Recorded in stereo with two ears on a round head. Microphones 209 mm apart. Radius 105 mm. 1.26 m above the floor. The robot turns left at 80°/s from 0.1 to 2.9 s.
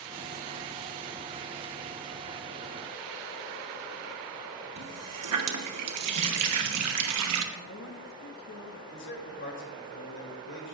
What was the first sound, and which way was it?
A running tap, 80° right.